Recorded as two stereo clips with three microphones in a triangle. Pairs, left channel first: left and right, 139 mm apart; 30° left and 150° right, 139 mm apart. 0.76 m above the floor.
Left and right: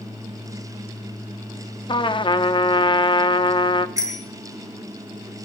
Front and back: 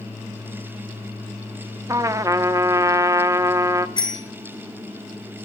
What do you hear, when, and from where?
1.9 s a trumpet: 145° left, 0.6 m
4.0 s a bicycle bell: 25° right, 5 m